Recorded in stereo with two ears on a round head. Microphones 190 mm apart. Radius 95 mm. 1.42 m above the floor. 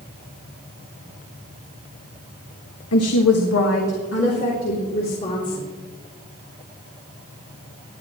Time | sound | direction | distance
2.9 | a woman speaking | 80° left | 1.6 m